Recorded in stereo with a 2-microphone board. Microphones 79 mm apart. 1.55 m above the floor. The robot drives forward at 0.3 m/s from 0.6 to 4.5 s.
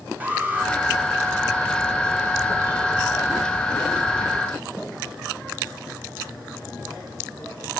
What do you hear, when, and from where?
0.2 s an alarm: 20° right (ahead or behind), 2 m; by 0.7 s 25° right (ahead or behind), 2 m